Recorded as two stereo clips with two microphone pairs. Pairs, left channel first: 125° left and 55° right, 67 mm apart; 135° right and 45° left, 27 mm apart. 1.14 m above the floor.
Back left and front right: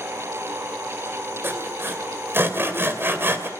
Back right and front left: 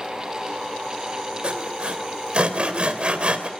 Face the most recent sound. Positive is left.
turn(degrees=0)